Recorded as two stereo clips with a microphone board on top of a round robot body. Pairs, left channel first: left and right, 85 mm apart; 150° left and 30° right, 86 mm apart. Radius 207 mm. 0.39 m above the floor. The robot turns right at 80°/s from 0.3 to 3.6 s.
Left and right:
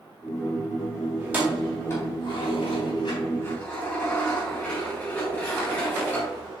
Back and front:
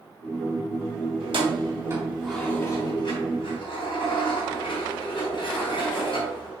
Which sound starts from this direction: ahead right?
Keys jangling, at 1.2 s.